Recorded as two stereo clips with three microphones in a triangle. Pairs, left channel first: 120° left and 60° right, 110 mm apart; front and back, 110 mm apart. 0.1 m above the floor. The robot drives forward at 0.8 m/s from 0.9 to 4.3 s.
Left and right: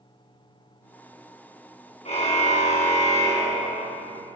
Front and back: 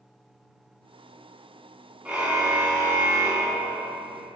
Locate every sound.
2.0 s a car horn: 100° left, 4 m; by 4.0 s 120° left, 5 m